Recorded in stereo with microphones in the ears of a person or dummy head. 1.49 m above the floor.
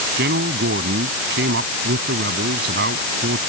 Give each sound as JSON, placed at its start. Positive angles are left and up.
{"t": 0.2, "sound": "a man speaking", "side_deg": -60}